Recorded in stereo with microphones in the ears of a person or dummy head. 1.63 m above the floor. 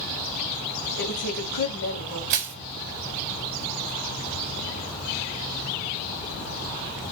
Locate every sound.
1.0 s a woman speaking: 75° left (ahead or behind), 2.5 m
2.3 s crushing: 50° right (ahead or behind), 0.8 m